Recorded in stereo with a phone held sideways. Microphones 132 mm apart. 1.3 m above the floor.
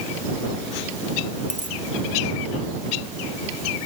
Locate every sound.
1.5 s a dropped coin: 80° left